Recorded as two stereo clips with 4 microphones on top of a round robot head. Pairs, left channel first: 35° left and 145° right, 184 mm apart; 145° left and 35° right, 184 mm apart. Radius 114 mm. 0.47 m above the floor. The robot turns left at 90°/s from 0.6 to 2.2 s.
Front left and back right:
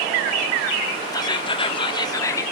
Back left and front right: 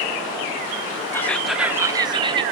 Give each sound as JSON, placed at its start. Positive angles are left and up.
{"t": 1.1, "sound": "whispering", "azimuth_deg": 80, "distance_m": 0.9}